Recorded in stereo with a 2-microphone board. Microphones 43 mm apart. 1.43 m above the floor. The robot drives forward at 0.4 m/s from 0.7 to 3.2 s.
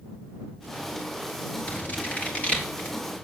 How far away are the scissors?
About 3 m.